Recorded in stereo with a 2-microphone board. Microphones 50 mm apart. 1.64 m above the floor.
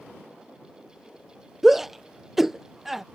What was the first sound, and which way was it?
A shout, 5° right (ahead or behind).